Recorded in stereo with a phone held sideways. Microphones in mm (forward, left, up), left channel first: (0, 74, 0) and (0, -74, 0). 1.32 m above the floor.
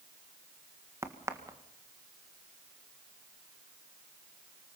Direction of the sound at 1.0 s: 20° right (ahead or behind).